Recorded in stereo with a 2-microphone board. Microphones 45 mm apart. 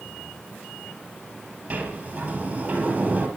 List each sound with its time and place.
1.7 s a sliding door: 30° right (ahead or behind), 5 m